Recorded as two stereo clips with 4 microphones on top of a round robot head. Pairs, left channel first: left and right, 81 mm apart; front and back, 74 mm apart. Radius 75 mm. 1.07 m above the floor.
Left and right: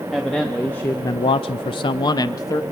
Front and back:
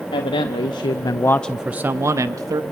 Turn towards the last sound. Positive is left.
turn(degrees=140)